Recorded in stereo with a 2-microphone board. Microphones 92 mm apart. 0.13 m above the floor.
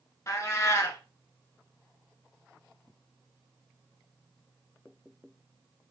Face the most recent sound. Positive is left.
turn(degrees=35)  # may be behind; listen again after turning